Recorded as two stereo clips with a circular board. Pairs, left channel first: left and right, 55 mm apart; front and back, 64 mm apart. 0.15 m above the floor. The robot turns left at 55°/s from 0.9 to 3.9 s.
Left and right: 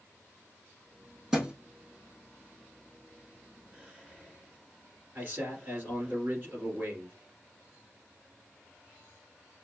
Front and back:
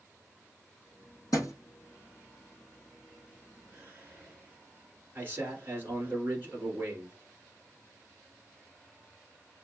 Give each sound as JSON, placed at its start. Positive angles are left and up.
{"t": 1.3, "sound": "a thud", "azimuth_deg": -5, "distance_m": 2.5}
{"t": 3.7, "sound": "whispering", "azimuth_deg": -135, "distance_m": 2.0}
{"t": 5.2, "sound": "a man speaking", "azimuth_deg": -130, "distance_m": 2.0}